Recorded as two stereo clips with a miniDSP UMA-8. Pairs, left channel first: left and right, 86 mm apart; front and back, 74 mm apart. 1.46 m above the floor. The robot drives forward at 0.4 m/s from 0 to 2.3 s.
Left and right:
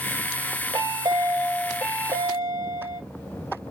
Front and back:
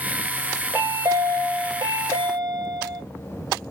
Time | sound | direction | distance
0.7 | a chime | 120° right | 0.8 m